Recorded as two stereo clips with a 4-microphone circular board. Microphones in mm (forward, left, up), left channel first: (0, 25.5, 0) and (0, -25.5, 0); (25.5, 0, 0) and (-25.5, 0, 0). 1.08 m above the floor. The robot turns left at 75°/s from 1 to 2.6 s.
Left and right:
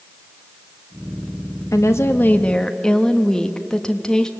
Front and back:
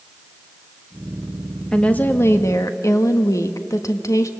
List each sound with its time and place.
1.7 s a woman speaking: 80° left, 1.3 m; by 4.3 s 10° left, 1.3 m